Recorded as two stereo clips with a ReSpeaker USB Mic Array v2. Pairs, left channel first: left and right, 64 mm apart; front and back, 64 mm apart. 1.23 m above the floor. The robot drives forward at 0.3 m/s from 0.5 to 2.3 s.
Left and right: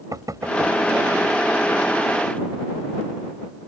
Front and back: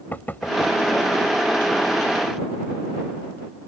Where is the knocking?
60° right.